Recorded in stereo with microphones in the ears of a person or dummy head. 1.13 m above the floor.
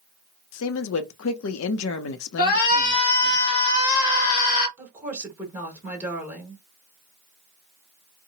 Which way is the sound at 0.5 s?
70° left (ahead or behind).